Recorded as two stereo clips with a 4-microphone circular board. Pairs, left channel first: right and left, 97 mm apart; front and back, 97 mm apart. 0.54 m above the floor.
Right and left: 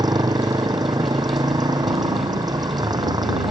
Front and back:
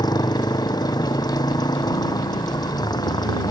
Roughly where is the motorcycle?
Ahead left.